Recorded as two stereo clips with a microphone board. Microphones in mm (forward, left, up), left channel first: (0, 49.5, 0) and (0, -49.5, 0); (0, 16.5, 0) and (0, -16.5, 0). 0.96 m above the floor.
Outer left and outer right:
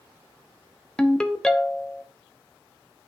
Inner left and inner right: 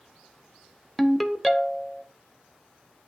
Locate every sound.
1.0 s a ringtone: 5° left (ahead or behind), 0.7 m